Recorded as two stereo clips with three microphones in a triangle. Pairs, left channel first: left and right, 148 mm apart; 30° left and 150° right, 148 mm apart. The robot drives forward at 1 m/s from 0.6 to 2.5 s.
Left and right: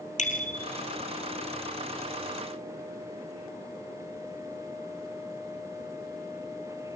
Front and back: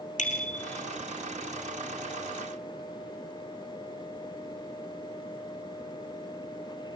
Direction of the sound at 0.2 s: 60° left.